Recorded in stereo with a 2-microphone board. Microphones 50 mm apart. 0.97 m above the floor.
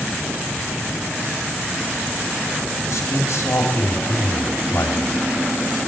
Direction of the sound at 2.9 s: 70° left (ahead or behind).